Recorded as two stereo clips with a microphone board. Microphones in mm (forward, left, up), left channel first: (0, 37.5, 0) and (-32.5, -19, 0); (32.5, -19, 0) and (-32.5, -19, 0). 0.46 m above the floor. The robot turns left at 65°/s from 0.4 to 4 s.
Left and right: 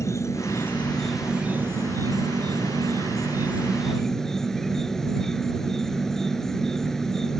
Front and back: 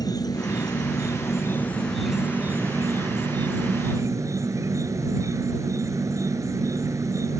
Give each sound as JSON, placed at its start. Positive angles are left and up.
{"t": 0.0, "sound": "an insect", "azimuth_deg": 15}